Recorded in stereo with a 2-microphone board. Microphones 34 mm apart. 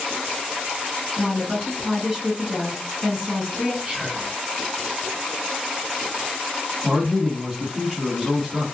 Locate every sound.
1.2 s a woman speaking: 15° right (ahead or behind), 1.5 m
3.8 s whispering: 15° right (ahead or behind), 1.9 m
6.8 s a man speaking: 15° right (ahead or behind), 2 m